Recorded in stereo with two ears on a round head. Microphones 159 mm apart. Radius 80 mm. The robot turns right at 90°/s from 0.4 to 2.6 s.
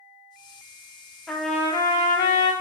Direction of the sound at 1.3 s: Centre (ahead or behind).